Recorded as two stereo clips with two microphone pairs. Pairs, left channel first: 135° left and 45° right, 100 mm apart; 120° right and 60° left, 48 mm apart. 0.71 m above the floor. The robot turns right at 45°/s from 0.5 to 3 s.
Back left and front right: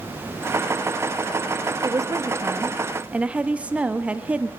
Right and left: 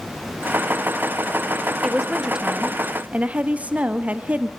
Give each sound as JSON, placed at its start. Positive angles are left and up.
{"t": 1.8, "sound": "a woman speaking", "azimuth_deg": -25, "distance_m": 0.6}